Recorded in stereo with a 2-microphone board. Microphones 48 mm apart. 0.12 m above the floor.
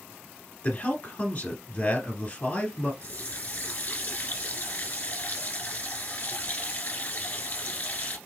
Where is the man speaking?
35° left (ahead or behind), 1.3 m.